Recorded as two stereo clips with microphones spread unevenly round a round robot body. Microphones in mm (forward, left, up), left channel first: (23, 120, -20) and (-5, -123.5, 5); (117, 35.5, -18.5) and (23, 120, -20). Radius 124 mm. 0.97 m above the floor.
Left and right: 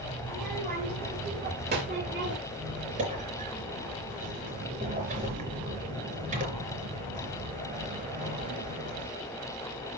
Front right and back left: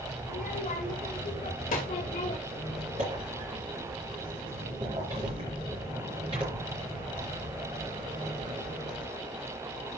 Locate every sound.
0.3 s a child speaking: 35° right, 3 m; by 2.4 s 55° right, 1.7 m
2.5 s a squeak: 160° right, 3.5 m